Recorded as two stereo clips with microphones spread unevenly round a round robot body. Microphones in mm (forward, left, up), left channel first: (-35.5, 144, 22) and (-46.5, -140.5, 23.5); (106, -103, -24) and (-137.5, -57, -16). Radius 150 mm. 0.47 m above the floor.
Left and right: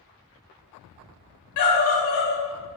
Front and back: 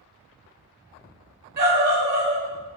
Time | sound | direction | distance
1.6 | a scream | 115° left | 1.8 m